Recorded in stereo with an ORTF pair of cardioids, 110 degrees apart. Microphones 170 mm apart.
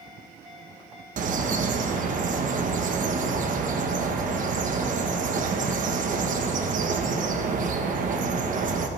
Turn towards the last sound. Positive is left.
turn(degrees=-50)